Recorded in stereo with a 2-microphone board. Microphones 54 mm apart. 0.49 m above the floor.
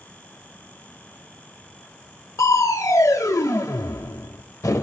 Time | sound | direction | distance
2.4 | crushing | 80° left | 0.5 m